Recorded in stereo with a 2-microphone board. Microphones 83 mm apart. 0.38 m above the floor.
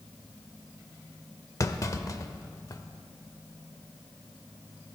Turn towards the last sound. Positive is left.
turn(degrees=40)  # may be behind; listen again after turning